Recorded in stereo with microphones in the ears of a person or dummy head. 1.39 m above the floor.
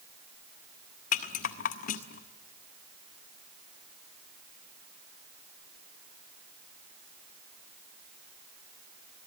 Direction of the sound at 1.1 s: 45° left (ahead or behind).